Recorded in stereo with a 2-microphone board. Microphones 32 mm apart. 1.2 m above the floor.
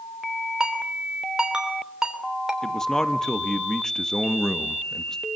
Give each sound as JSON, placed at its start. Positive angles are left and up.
{"t": 0.6, "sound": "a ringtone", "side_deg": -20, "distance_m": 3.0}
{"t": 2.6, "sound": "a man speaking", "side_deg": 15, "distance_m": 1.3}